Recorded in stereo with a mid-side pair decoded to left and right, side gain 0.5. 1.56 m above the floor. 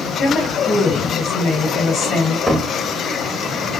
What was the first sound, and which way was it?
A woman speaking, 65° left.